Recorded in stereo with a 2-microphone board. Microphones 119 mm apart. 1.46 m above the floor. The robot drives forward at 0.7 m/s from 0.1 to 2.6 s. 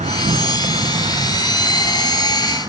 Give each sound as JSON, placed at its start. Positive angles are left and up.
{"t": 0.0, "sound": "an insect", "side_deg": -80, "distance_m": 0.8}